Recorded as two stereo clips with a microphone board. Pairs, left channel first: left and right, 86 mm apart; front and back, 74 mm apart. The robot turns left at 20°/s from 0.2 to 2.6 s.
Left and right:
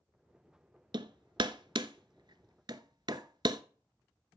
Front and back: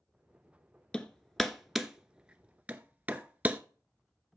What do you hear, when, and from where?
0.9 s hammering: 75° right, 0.7 m; by 3.6 s 110° right, 0.7 m